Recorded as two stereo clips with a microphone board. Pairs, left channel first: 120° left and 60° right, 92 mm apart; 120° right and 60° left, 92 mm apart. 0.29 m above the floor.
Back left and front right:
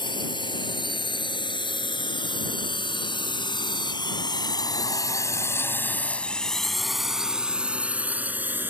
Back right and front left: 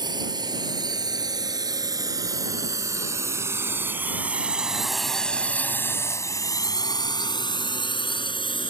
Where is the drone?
95° left; by 8.7 s 125° right.